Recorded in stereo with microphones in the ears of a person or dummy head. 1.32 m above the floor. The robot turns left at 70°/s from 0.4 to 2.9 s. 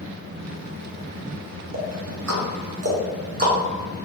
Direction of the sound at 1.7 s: 50° right (ahead or behind).